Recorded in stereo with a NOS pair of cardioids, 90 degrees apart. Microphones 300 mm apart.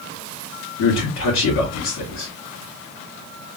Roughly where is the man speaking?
Left.